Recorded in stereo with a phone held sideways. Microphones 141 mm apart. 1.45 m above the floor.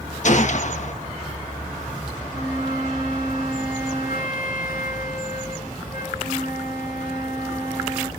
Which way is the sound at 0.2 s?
60° left (ahead or behind).